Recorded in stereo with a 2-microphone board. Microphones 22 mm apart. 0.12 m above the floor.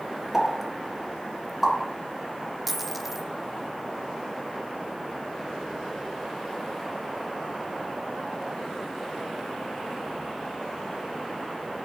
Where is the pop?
Centre (ahead or behind), 1.8 m.